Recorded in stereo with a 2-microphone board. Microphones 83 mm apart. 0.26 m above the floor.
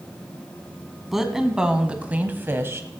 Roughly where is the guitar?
I don't hear a guitar.